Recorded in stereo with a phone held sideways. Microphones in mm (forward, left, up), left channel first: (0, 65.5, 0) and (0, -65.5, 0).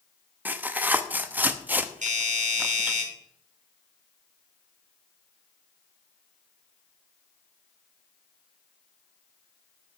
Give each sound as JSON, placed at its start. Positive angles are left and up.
{"t": 0.5, "sound": "tearing paper", "side_deg": -15, "distance_m": 0.8}
{"t": 2.0, "sound": "a doorbell", "side_deg": -75, "distance_m": 4.0}